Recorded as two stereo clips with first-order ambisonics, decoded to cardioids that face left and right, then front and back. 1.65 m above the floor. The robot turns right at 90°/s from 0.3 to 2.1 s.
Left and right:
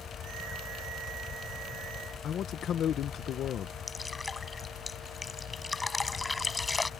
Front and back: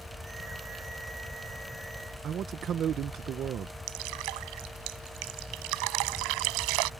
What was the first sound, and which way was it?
A man speaking, 135° left.